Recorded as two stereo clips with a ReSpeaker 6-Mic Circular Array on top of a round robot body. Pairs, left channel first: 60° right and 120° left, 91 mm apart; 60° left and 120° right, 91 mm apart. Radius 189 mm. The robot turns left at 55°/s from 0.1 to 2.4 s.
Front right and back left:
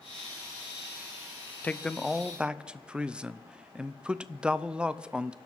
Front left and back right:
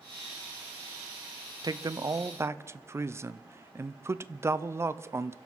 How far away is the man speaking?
About 0.8 m.